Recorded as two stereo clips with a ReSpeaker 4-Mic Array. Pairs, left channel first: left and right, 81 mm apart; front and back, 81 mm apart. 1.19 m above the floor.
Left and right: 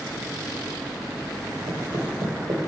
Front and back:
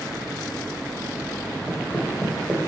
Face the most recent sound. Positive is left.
turn(degrees=-100)